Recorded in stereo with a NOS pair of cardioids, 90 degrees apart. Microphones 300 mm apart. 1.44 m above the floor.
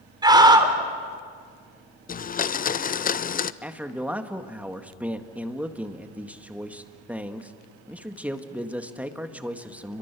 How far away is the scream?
About 4 m.